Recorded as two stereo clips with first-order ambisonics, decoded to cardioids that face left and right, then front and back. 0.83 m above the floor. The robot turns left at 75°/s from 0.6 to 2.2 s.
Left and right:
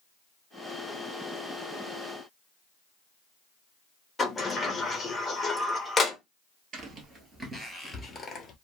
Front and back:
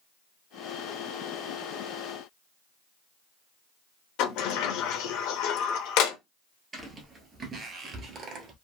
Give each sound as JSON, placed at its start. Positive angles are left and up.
{"t": 4.2, "sound": "a sliding door", "azimuth_deg": 15, "distance_m": 0.6}
{"t": 6.7, "sound": "footsteps", "azimuth_deg": -115, "distance_m": 1.0}